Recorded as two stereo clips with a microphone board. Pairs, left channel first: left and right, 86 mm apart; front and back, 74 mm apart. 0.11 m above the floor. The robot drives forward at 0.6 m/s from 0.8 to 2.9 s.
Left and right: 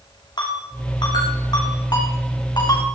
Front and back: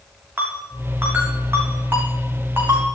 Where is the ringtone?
115° left, 5.5 m; by 3.0 s 125° left, 6 m.